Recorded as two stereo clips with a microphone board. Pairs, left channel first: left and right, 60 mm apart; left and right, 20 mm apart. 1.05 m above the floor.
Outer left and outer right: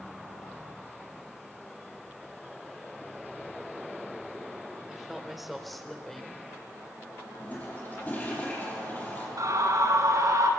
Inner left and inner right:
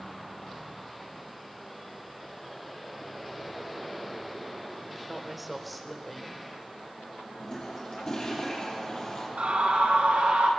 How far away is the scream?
About 9 m.